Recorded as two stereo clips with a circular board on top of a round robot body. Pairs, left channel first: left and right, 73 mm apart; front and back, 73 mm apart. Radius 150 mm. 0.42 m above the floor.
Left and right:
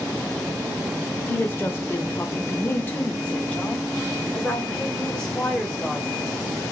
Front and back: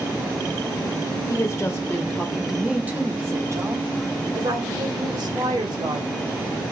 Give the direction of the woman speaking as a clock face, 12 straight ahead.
11 o'clock.